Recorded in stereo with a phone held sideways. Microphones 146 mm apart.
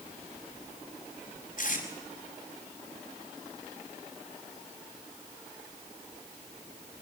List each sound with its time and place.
1.6 s tape being pulled: 65° left (ahead or behind), 4.5 m